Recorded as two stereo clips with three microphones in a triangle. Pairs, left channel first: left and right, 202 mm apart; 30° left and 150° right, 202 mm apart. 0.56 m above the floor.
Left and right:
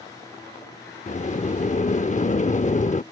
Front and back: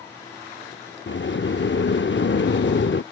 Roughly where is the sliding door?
Ahead left.